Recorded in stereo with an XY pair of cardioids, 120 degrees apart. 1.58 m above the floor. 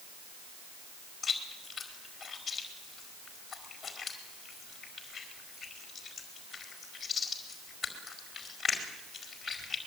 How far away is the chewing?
About 5 m.